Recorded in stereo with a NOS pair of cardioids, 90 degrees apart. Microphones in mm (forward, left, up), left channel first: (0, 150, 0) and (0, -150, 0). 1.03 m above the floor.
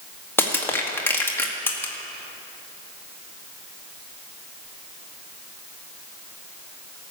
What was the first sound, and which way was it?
Crushing, 5° left.